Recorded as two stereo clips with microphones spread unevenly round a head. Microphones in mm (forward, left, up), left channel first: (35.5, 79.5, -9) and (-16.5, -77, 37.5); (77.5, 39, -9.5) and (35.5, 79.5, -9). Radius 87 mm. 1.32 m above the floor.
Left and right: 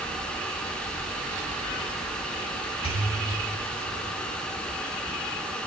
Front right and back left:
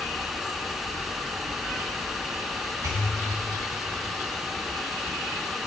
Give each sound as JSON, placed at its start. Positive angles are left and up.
{"t": 2.8, "sound": "a pop", "azimuth_deg": 135, "distance_m": 2.5}